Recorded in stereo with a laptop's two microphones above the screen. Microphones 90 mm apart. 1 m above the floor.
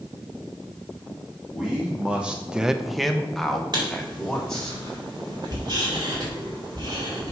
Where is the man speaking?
5° right (ahead or behind), 1.5 m; by 4.7 s 5° left (ahead or behind), 3.5 m.